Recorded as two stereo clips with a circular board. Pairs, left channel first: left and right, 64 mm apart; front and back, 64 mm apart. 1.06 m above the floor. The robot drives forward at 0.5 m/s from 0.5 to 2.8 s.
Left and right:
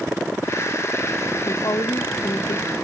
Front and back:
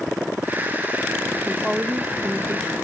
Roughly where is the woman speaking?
Left.